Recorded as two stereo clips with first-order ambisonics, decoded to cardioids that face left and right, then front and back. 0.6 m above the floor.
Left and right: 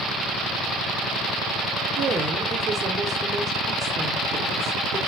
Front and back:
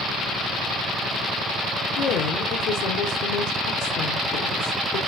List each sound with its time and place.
2.0 s a woman speaking: 10° right, 1.6 m